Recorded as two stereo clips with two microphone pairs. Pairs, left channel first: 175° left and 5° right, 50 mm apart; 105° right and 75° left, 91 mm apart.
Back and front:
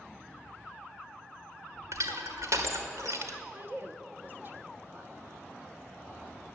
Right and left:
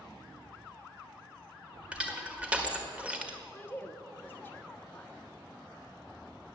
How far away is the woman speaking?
About 1.4 m.